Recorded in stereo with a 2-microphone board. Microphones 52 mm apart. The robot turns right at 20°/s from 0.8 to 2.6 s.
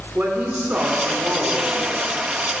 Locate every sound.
0.1 s a woman speaking: 30° right (ahead or behind), 1.5 m; by 2.2 s 35° right (ahead or behind), 1.5 m